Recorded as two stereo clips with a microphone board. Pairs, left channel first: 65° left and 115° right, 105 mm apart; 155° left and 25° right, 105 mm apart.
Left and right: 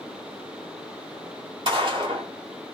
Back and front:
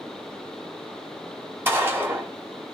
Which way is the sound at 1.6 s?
85° right.